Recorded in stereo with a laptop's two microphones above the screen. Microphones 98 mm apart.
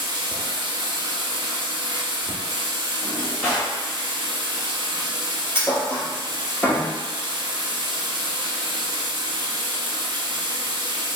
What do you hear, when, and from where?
0.0 s running water: 50° right (ahead or behind), 0.7 m
3.0 s a drawer: 30° left (ahead or behind), 1.1 m
5.5 s a thud: 25° left (ahead or behind), 1.4 m